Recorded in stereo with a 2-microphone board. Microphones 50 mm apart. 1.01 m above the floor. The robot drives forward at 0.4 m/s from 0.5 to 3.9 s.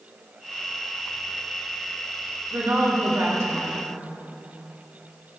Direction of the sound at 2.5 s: 75° right (ahead or behind).